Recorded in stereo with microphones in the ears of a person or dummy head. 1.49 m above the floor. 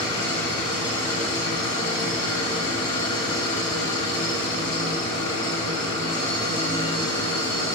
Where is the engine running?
25° left (ahead or behind), 2.5 m.